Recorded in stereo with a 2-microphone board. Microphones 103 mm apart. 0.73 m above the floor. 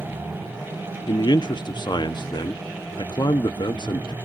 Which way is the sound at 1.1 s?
50° left (ahead or behind).